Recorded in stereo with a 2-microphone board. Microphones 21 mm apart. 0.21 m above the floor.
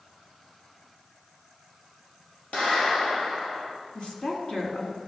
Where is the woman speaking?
50° left (ahead or behind), 2.5 m.